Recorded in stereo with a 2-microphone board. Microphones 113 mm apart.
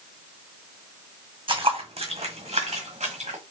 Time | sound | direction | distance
1.5 | footsteps | 50° right (ahead or behind) | 1.2 m